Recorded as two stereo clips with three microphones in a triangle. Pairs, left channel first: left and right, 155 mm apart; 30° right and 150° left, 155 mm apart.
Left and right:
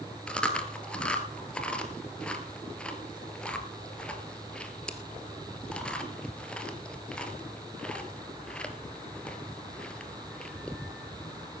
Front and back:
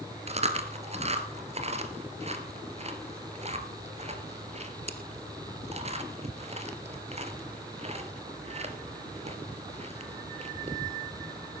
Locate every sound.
0.3 s chewing: 170° left, 1.4 m